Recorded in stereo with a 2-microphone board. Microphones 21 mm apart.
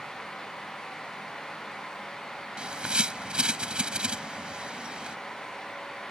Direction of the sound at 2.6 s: 50° right (ahead or behind).